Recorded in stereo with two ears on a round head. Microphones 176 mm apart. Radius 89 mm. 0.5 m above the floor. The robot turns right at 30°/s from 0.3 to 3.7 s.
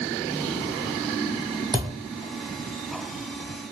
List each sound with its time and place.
1.7 s a thud: 20° right (ahead or behind), 0.7 m; by 1.9 s 25° right (ahead or behind), 0.7 m